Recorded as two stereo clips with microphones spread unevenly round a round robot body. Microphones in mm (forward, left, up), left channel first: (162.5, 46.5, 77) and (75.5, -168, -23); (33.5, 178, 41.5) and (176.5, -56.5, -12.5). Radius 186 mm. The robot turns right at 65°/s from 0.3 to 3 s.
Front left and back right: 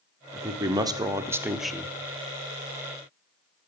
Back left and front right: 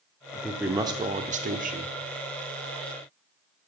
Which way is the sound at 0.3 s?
145° right.